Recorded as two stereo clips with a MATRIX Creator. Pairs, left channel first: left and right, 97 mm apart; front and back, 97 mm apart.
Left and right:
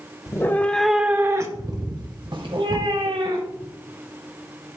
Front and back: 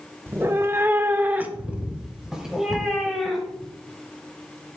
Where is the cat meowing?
125° left, 0.9 m; by 3.7 s 90° right, 2.5 m.